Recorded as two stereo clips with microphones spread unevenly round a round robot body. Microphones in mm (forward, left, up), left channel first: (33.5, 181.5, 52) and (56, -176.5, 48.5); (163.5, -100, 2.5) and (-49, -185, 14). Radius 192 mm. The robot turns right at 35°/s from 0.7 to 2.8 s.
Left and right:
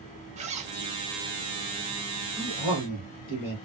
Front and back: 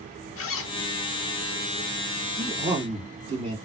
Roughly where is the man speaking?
Behind left.